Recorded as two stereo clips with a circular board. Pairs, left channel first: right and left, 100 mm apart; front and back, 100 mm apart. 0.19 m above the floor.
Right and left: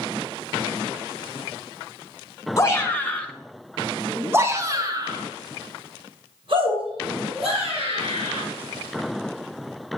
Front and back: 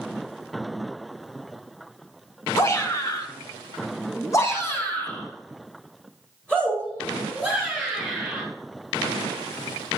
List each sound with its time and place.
2.6 s a shout: 40° right, 1.9 m; by 8.4 s 85° left, 4.5 m